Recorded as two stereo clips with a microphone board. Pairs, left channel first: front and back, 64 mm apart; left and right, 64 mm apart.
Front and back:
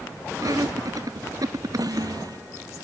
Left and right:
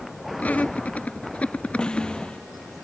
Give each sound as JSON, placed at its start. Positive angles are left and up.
{"t": 0.4, "sound": "laughter", "azimuth_deg": 155}
{"t": 1.8, "sound": "a snare drum", "azimuth_deg": 165}